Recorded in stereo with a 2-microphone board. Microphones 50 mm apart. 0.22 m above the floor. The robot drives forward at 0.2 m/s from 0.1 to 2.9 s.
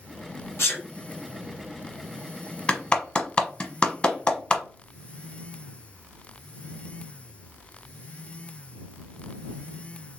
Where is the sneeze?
55° left (ahead or behind), 1.6 m.